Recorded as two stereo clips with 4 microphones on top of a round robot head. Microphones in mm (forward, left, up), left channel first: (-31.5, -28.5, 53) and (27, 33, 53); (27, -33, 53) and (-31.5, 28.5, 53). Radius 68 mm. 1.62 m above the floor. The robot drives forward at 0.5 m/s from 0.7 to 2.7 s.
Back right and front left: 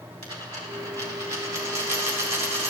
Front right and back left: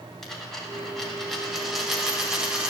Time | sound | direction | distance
0.2 | a dropped coin | 35° left | 2.5 m